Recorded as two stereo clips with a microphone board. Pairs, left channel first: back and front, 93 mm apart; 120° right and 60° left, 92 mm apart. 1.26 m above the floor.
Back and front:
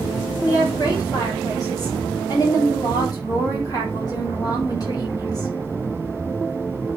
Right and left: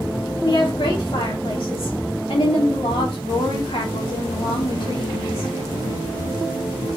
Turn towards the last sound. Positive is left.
turn(degrees=-135)